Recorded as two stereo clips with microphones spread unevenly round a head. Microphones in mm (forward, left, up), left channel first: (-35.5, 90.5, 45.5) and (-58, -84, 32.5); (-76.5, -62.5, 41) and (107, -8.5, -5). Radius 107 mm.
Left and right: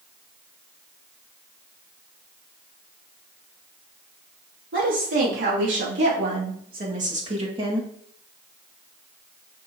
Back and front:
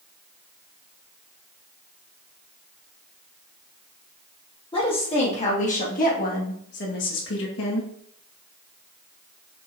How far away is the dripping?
I don't hear dripping.